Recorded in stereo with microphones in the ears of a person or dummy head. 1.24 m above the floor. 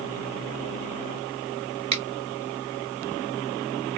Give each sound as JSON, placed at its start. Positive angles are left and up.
{"t": 1.9, "sound": "a finger snap", "side_deg": -35, "distance_m": 1.6}